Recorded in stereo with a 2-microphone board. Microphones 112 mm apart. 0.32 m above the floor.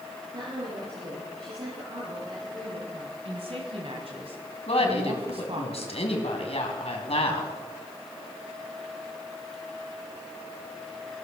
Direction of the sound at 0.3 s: 55° right (ahead or behind).